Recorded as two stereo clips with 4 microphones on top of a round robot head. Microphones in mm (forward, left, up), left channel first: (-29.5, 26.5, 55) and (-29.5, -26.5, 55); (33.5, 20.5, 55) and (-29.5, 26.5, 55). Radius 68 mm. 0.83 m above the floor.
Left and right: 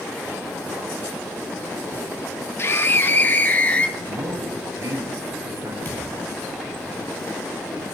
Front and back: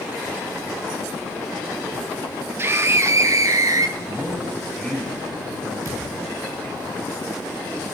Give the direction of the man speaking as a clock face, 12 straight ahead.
3 o'clock.